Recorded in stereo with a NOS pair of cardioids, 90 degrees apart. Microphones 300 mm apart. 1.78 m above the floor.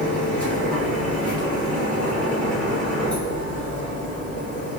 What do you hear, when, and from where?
0.0 s a machine running: 5° left, 2.0 m